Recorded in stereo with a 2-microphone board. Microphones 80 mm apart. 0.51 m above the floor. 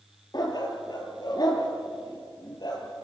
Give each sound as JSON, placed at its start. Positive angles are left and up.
{"t": 0.3, "sound": "a dog barking", "side_deg": 60, "distance_m": 3.5}